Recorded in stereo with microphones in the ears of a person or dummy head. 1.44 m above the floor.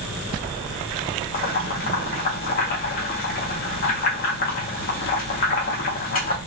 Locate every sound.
1.3 s boiling: 45° left (ahead or behind), 0.8 m